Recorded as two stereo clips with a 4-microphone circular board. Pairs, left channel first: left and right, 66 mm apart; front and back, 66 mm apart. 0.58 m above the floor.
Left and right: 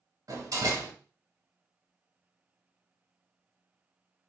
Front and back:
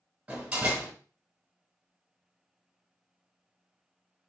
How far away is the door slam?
About 1.4 m.